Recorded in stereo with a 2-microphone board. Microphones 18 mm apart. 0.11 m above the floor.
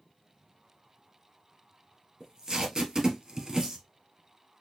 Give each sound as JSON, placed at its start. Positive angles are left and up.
{"t": 2.2, "sound": "tape being pulled", "side_deg": -30, "distance_m": 1.5}